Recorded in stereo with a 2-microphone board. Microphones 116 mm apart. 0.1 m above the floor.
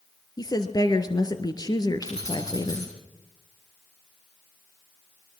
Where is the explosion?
No explosion in this recording.